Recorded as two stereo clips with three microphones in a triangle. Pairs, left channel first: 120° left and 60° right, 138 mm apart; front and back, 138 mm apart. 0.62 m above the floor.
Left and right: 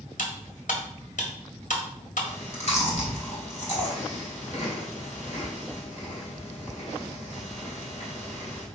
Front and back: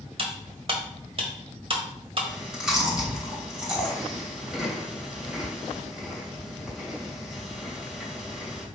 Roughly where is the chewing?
Left.